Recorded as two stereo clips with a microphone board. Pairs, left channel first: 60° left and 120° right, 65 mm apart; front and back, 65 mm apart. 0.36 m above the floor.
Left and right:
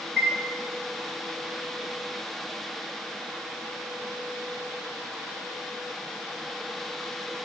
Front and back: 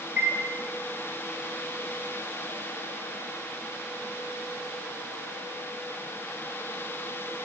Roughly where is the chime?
Behind left.